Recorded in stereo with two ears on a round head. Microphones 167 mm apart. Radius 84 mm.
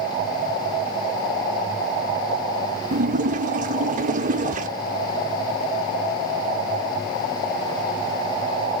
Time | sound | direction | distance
2.9 | a splash | 40° right (ahead or behind) | 0.5 m